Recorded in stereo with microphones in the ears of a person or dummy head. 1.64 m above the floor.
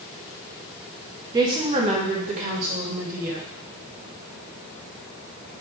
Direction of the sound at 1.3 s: 25° right (ahead or behind).